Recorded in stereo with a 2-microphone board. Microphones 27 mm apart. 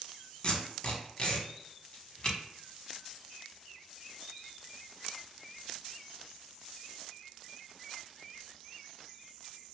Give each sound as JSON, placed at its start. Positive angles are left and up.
{"t": 0.4, "sound": "tape being pulled", "side_deg": 40, "distance_m": 0.8}